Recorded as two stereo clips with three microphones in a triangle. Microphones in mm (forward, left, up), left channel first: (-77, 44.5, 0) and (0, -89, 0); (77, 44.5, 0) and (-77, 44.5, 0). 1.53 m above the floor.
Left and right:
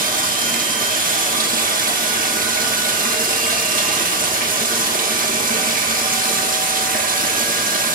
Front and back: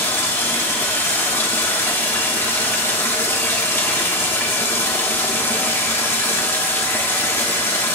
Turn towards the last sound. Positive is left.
turn(degrees=-75)